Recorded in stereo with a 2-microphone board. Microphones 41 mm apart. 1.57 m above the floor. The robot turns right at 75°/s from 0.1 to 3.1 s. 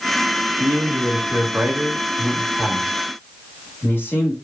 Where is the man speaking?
130° right, 1.6 m; by 4.3 s 55° left, 1.6 m.